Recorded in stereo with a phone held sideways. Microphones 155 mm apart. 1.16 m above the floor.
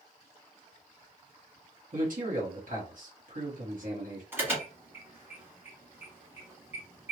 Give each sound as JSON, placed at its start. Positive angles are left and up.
{"t": 1.9, "sound": "a man speaking", "side_deg": -65, "distance_m": 1.2}
{"t": 4.3, "sound": "an alarm", "side_deg": -15, "distance_m": 1.4}